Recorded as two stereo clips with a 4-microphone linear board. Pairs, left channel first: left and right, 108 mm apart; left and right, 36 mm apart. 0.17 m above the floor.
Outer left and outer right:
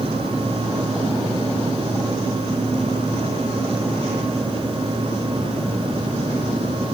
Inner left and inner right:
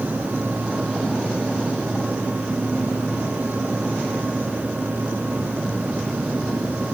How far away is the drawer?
No drawer in this recording.